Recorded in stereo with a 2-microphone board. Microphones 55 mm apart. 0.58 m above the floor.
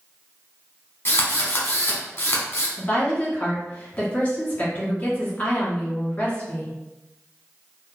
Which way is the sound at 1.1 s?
45° left (ahead or behind).